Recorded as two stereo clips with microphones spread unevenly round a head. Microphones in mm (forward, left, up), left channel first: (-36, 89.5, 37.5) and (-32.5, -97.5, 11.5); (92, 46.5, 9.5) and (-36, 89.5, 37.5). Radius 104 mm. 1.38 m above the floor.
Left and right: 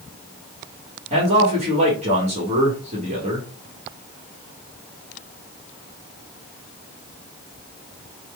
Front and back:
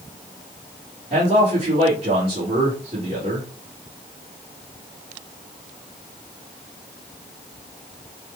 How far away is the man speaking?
About 1.4 m.